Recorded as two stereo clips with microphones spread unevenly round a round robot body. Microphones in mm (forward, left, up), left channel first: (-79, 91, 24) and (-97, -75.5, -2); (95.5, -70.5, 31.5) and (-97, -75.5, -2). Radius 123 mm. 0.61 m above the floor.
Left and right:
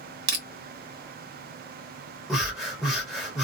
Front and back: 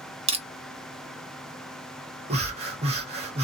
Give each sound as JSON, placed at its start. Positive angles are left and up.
{"t": 0.3, "sound": "crushing", "azimuth_deg": -120, "distance_m": 1.0}
{"t": 2.3, "sound": "breathing", "azimuth_deg": -170, "distance_m": 1.3}